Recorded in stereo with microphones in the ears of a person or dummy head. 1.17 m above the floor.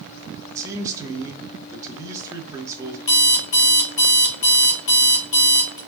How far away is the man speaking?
About 0.7 m.